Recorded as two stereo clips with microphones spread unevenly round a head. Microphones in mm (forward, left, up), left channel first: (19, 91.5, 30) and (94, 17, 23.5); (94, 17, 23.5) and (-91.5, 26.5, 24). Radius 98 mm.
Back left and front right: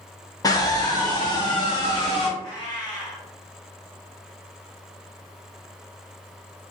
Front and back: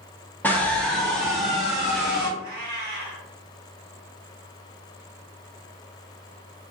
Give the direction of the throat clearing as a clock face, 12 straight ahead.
No throat clearing in this recording.